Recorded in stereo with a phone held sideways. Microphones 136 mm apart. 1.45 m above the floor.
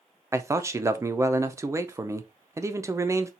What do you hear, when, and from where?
0.3 s a man speaking: 20° right (ahead or behind), 0.5 m